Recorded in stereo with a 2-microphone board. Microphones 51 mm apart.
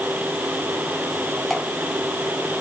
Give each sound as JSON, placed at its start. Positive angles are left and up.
{"t": 1.5, "sound": "dripping", "side_deg": 5, "distance_m": 2.5}